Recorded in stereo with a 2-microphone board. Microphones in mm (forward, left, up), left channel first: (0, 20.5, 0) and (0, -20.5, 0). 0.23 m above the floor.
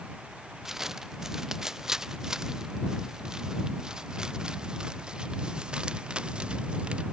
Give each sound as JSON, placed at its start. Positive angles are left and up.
{"t": 0.7, "sound": "footsteps", "side_deg": -10}